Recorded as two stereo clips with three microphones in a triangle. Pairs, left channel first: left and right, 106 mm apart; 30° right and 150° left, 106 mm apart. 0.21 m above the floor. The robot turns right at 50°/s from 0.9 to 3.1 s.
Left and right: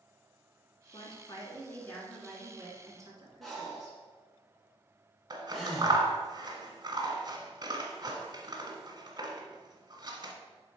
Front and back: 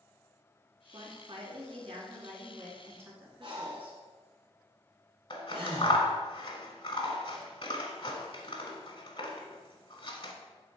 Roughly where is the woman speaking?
Behind left.